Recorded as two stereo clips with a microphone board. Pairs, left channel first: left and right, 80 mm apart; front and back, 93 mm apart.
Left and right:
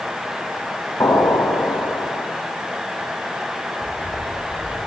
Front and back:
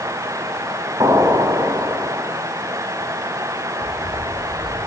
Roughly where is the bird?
Ahead left.